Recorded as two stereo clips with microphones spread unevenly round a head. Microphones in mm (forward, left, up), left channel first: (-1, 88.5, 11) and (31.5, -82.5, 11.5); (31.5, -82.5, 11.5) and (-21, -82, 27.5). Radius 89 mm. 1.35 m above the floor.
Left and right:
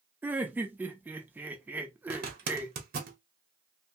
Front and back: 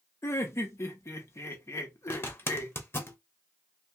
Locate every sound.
0.2 s laughter: straight ahead, 0.8 m
2.1 s a zipper: 45° right, 1.0 m